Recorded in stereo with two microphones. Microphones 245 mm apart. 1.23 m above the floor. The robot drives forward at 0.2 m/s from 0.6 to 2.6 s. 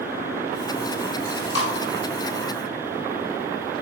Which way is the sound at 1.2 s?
50° right (ahead or behind).